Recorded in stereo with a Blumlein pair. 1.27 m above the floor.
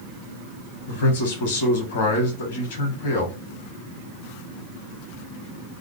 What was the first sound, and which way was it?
A man speaking, 60° left.